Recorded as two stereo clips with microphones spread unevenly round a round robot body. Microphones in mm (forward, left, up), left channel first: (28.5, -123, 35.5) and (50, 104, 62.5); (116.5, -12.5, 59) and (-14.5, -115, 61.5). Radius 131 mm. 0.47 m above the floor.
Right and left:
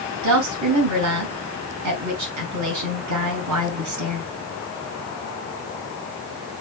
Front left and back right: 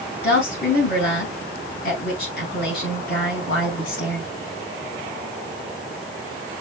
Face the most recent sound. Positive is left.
turn(degrees=80)